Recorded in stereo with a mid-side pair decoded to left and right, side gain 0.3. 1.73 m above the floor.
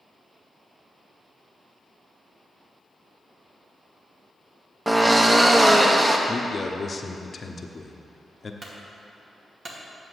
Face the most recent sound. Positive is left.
turn(degrees=-60)